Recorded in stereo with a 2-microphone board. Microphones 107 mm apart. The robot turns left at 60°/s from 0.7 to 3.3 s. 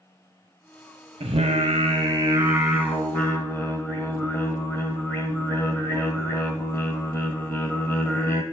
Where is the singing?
80° right, 1.0 m; by 8.4 s 155° left, 1.0 m.